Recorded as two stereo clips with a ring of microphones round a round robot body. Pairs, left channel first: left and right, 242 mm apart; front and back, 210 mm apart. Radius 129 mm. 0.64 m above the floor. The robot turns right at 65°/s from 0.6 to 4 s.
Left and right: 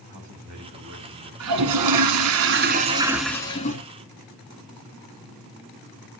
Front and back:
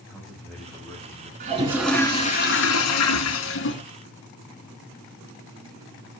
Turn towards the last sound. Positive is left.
turn(degrees=50)